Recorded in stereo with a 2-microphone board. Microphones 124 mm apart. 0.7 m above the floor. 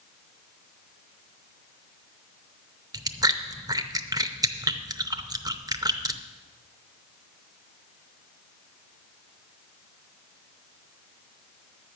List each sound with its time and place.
2.9 s chewing: 30° right (ahead or behind), 0.6 m